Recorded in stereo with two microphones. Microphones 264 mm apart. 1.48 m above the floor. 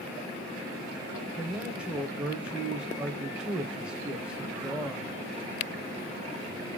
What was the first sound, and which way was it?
A man speaking, 5° right (ahead or behind).